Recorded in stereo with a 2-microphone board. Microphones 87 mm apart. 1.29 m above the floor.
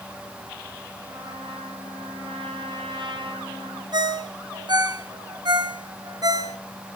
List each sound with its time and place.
1.1 s a trumpet: 70° right (ahead or behind), 8.5 m
3.9 s a ringtone: 55° right (ahead or behind), 1.7 m